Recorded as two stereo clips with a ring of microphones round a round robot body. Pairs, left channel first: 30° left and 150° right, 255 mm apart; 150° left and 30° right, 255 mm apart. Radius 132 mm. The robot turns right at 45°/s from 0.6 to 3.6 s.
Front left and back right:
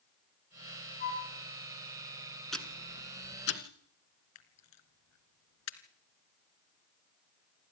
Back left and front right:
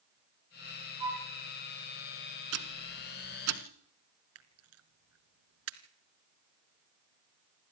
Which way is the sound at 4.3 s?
5° left.